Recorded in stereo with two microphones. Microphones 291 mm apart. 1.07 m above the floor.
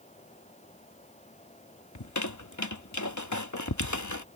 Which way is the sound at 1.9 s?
80° left.